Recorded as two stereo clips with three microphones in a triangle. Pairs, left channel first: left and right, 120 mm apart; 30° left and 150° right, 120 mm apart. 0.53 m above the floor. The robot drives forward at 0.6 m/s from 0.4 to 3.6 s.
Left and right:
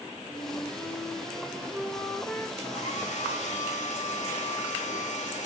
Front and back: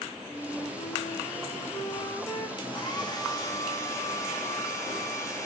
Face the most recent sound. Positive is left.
turn(degrees=95)